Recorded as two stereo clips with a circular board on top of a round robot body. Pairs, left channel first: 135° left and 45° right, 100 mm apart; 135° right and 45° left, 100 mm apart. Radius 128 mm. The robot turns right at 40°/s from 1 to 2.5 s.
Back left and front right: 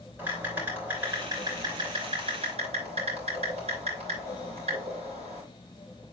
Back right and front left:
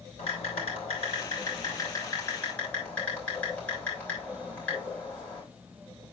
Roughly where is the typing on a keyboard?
Behind right.